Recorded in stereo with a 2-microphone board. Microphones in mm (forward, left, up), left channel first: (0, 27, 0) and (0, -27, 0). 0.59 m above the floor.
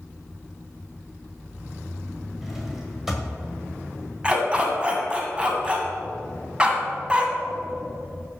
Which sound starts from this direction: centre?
A drawer, at 2.4 s.